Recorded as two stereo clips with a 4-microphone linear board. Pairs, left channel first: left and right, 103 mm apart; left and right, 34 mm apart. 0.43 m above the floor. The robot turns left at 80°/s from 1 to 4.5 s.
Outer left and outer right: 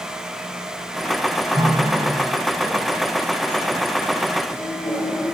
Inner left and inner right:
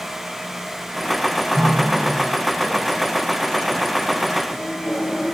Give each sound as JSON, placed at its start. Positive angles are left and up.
{"t": 1.6, "sound": "a running tap", "side_deg": -45, "distance_m": 2.5}